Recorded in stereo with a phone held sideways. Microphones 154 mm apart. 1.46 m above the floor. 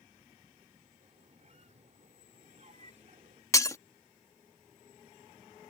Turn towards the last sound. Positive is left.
turn(degrees=20)  # may be behind; listen again after turning